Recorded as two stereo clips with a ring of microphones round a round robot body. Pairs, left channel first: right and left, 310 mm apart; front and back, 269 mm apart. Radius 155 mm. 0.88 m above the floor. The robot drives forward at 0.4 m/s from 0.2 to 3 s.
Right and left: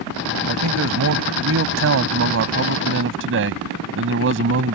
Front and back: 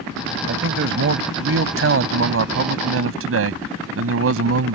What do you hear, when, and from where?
0.5 s a man speaking: 135° left; by 4.8 s 145° left